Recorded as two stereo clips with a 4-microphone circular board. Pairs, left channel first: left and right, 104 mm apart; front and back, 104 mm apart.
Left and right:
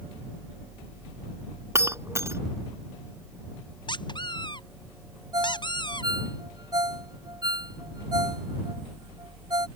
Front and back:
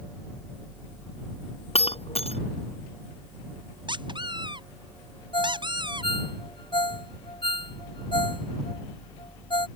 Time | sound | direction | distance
1.8 | breaking glass | 25° right | ?
3.9 | a squeak | 135° left | ?
5.3 | a ringtone | 40° right | ?